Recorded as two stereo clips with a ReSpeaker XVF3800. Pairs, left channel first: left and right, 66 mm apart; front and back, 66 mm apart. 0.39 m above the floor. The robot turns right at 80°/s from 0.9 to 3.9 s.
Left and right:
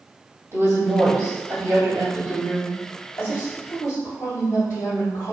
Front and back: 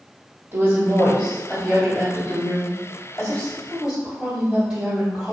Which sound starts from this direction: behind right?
A woman speaking, at 0.5 s.